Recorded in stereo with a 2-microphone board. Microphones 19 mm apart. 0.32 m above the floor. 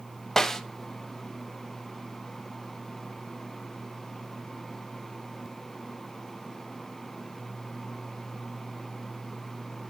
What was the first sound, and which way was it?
A snare drum, 20° left (ahead or behind).